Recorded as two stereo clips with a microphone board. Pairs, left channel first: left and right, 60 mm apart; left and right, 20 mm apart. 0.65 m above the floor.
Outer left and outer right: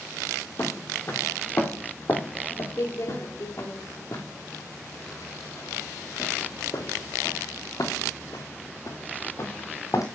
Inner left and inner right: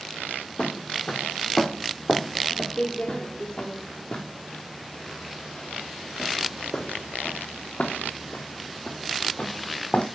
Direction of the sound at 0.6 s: 40° left (ahead or behind).